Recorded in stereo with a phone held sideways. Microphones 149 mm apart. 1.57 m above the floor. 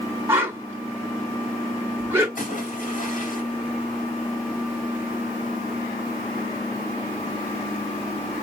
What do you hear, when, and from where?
0.3 s a whoosh: 15° right (ahead or behind), 1.7 m
2.4 s a splash: 65° left (ahead or behind), 3 m